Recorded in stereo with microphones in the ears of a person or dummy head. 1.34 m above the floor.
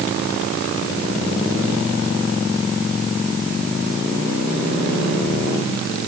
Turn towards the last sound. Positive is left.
No sound to turn to.